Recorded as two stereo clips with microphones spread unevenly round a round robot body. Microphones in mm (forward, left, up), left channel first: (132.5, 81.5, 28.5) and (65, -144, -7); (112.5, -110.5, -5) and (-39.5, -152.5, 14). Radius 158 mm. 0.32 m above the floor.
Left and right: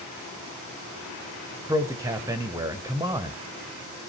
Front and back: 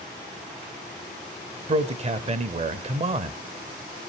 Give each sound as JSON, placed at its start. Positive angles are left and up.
{"t": 1.7, "sound": "a man speaking", "azimuth_deg": -160, "distance_m": 1.0}